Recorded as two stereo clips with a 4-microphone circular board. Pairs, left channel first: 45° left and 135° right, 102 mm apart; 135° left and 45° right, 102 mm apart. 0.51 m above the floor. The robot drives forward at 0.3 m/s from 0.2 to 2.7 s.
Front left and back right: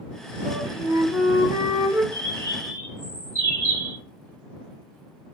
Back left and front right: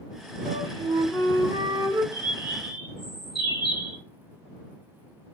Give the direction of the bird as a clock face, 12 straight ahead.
9 o'clock.